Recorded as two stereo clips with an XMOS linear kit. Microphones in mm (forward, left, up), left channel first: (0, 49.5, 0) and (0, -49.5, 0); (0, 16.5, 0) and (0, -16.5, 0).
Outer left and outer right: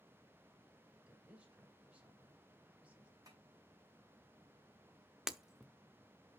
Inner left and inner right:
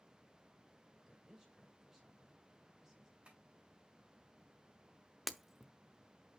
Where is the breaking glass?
5° right (ahead or behind), 0.6 m.